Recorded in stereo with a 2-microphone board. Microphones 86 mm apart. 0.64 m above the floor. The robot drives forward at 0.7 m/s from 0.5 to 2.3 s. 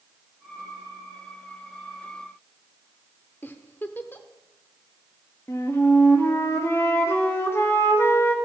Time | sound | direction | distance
3.4 | a giggle | 25° left (ahead or behind) | 0.7 m
5.5 | a flute | 30° left (ahead or behind) | 1.2 m